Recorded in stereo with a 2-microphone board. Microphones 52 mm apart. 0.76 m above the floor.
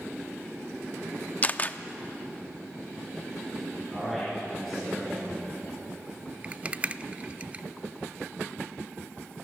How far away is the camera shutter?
About 0.6 m.